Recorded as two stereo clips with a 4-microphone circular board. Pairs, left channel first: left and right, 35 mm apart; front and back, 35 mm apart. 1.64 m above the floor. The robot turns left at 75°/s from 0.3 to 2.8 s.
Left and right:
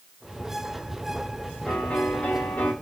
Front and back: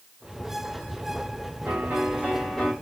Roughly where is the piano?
Behind.